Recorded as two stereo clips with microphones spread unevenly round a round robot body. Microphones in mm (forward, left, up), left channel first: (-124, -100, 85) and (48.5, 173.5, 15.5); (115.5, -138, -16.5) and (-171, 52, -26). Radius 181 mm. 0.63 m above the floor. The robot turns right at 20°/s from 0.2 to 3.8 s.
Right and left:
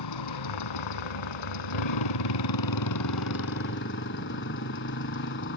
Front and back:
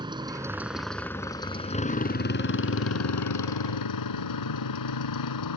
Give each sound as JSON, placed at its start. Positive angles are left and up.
{"t": 0.0, "sound": "a motorcycle", "azimuth_deg": -135}